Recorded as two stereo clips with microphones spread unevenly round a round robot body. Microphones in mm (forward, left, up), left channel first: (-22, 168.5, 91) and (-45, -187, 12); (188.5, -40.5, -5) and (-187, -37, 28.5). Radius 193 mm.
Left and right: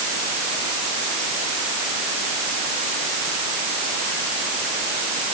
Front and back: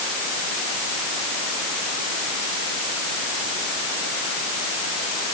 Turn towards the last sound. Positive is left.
No sound to turn to.